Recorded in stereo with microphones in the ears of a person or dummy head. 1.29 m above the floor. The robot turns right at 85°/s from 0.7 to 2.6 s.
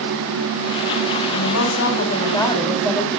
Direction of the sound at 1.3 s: 75° left.